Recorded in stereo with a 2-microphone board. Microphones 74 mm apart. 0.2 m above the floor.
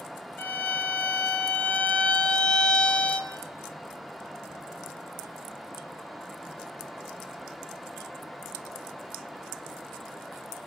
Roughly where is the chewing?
No chewing in this recording.